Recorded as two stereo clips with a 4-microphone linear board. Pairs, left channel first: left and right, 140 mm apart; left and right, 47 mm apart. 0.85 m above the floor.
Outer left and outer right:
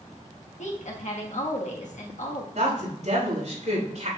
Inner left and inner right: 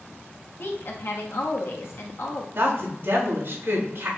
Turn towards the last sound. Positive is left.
turn(degrees=-55)  # may be behind; listen again after turning